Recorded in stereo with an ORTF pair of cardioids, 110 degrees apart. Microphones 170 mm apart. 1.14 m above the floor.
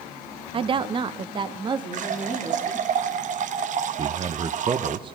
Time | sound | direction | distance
0.5 | a woman speaking | 30° right | 0.6 m
1.9 | a running tap | 50° right | 0.9 m
4.0 | a man speaking | 30° right | 0.7 m